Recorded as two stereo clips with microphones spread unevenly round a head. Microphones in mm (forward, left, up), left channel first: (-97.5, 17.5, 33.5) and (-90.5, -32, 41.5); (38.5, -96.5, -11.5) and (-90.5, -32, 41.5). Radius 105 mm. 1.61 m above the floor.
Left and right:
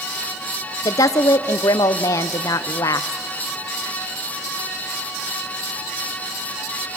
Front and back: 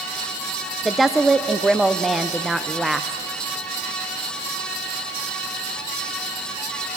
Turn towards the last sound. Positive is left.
turn(degrees=80)